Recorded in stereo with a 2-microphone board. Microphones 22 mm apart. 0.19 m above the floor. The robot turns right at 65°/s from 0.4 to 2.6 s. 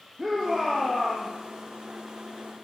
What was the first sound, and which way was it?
A shout, 15° right.